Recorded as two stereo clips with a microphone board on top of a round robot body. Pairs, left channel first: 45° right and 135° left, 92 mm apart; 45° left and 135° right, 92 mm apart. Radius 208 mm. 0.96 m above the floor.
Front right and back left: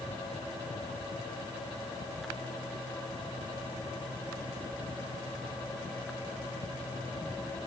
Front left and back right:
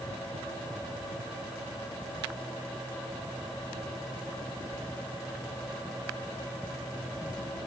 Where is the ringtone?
I don't hear a ringtone.